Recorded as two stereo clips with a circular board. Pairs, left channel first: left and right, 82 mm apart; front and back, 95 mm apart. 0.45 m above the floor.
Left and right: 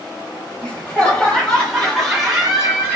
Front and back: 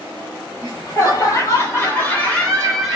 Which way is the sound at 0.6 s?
25° left.